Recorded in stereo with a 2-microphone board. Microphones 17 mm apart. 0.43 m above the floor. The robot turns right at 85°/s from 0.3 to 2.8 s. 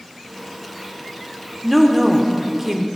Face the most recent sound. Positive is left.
turn(degrees=-20)  # may be behind; listen again after turning